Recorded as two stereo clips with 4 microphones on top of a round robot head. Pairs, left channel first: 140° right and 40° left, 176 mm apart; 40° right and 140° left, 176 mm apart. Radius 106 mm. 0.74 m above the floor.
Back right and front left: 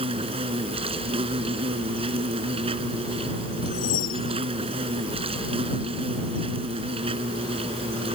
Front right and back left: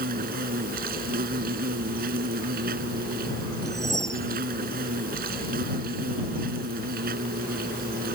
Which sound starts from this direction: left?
An insect, at 0.0 s.